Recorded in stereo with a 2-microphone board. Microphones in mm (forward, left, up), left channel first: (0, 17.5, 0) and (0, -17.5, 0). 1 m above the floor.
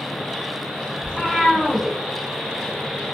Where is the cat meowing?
20° left (ahead or behind), 1.1 m.